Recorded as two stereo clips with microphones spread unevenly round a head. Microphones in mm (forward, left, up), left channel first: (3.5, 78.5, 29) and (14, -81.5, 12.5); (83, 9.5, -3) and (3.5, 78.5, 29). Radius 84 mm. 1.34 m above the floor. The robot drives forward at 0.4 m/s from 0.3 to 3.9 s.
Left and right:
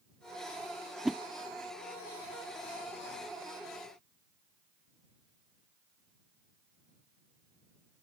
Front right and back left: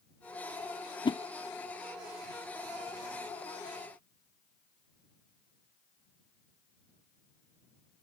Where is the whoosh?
Straight ahead.